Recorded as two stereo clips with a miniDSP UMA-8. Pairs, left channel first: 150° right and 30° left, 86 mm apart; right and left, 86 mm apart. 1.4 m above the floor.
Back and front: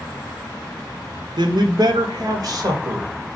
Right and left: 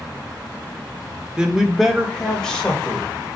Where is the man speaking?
10° left, 1.1 m; by 3.1 s 15° right, 2 m.